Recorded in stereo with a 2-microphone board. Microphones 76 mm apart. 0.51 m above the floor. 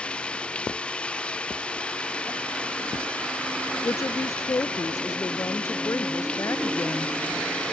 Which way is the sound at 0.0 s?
15° left (ahead or behind).